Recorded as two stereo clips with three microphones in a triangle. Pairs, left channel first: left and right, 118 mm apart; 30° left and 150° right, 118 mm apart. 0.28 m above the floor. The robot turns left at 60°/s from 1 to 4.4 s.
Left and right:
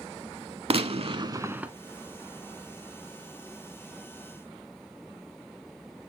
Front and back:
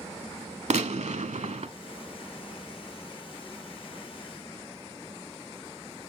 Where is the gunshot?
130° right, 0.5 m; by 1.7 s 175° right, 0.5 m.